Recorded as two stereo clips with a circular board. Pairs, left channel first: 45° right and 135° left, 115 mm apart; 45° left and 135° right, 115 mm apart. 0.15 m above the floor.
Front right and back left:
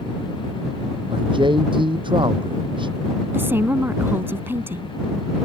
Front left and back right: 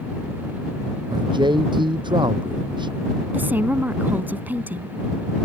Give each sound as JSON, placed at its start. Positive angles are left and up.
{"t": 1.1, "sound": "a man speaking", "azimuth_deg": 180}
{"t": 3.3, "sound": "a woman speaking", "azimuth_deg": 175}